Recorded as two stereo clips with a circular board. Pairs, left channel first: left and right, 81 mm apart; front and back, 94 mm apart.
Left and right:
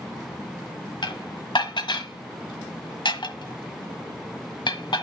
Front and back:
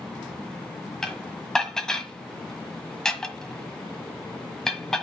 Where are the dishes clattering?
85° left, 1.4 m.